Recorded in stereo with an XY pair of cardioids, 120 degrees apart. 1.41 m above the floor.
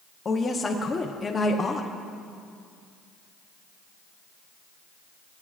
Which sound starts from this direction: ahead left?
A woman speaking, at 0.2 s.